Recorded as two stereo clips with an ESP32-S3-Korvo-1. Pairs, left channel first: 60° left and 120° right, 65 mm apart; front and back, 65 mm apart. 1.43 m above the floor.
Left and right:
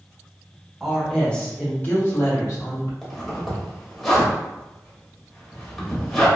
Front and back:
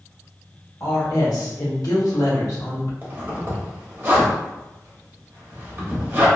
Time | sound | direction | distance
0.8 | a woman speaking | 30° right | 1.0 m
3.0 | a zipper | 145° left | 0.9 m